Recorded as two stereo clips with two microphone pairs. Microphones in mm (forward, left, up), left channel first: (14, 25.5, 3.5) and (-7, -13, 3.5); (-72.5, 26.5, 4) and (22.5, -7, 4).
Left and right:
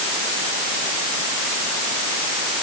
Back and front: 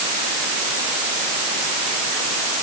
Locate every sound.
Only background noise.